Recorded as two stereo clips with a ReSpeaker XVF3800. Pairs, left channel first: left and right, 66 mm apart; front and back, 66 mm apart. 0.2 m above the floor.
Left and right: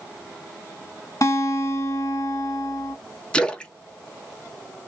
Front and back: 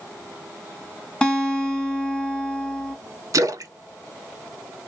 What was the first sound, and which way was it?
A guitar, 75° left.